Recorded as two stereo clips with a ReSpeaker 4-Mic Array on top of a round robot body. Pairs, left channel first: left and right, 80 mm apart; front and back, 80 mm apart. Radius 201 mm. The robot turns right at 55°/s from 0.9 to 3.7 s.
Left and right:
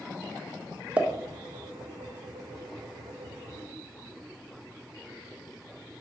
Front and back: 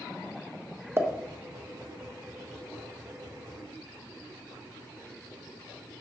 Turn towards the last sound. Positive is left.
turn(degrees=0)